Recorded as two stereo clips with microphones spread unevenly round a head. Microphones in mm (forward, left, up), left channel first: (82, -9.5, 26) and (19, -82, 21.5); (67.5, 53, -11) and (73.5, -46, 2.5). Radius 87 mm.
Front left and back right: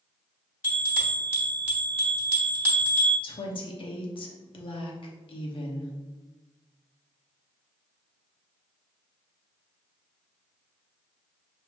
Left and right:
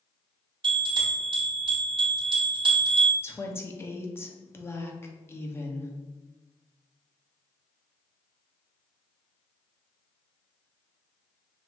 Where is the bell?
60° right, 1.9 m.